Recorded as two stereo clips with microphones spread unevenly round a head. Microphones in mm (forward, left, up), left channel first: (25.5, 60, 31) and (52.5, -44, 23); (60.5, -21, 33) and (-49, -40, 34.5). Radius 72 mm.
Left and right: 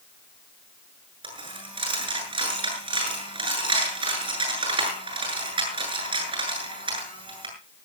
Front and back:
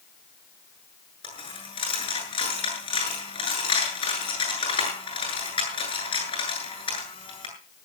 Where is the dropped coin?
30° right, 8.5 m.